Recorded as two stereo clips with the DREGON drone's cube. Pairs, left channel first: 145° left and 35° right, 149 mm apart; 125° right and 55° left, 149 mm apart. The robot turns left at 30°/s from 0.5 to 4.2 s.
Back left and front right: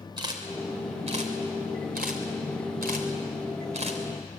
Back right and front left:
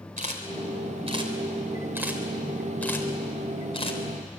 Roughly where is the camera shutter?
Ahead left.